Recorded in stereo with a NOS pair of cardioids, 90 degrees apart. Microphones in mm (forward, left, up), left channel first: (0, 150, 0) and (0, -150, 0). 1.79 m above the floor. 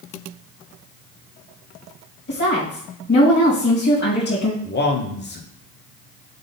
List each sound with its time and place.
2.3 s a woman speaking: 35° left, 2.5 m
4.6 s a man speaking: 35° left, 1.2 m